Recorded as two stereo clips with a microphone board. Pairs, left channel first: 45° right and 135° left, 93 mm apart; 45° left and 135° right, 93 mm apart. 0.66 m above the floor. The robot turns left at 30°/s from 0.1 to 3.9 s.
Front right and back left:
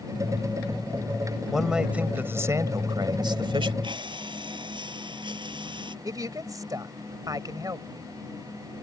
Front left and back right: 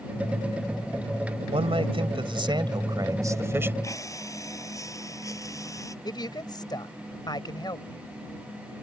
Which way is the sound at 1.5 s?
135° right.